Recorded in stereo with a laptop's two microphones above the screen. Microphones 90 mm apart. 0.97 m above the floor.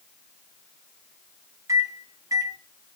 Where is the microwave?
40° right (ahead or behind), 0.6 m.